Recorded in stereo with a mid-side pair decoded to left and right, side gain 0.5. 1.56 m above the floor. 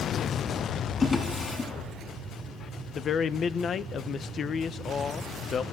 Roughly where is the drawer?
Ahead left.